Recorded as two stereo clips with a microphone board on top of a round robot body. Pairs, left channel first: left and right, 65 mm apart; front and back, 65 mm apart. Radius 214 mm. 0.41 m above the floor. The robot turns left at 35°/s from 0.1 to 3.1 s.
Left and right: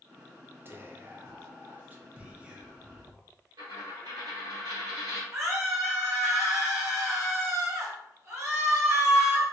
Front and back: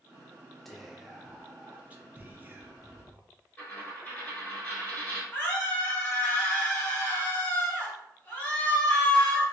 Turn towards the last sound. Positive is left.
turn(degrees=-65)